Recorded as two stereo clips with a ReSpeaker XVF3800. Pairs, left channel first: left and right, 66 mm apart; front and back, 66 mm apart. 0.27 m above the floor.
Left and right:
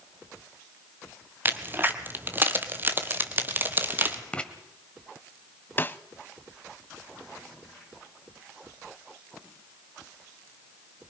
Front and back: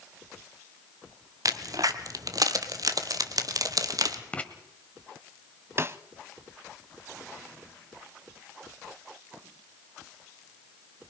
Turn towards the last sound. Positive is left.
turn(degrees=140)